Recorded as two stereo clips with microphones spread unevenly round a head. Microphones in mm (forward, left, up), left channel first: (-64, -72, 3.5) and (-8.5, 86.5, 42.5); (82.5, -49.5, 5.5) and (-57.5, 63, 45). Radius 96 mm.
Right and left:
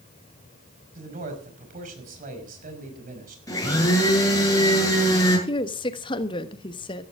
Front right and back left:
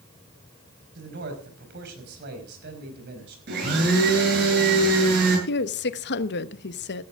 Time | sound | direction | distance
0.9 | a man speaking | 110° left | 5.5 m
3.5 | a blender | straight behind | 8 m
5.5 | a woman speaking | 50° right | 1.1 m